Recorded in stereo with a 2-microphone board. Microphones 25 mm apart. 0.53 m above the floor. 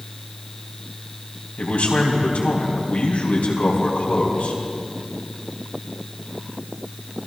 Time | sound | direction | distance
1.6 | a man speaking | 70° left (ahead or behind) | 3.5 m